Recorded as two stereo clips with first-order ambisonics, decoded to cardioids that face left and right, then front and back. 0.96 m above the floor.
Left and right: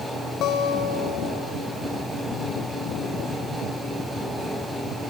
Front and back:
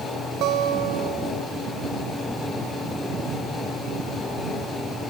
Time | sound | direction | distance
0.4 | a guitar | 135° left | 1.4 m